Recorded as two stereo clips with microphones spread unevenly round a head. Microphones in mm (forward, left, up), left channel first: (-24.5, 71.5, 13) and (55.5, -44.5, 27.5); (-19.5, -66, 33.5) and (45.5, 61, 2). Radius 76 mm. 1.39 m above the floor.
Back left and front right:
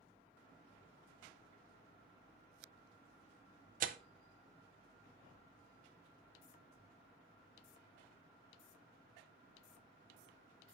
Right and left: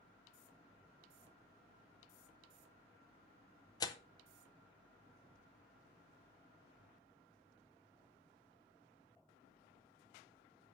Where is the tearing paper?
65° right, 0.5 m.